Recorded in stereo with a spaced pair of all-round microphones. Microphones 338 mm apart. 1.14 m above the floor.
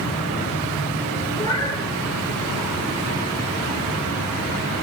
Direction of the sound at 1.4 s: 15° left (ahead or behind).